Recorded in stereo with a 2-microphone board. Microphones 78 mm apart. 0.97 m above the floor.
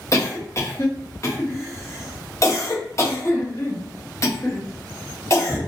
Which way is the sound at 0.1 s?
40° left (ahead or behind).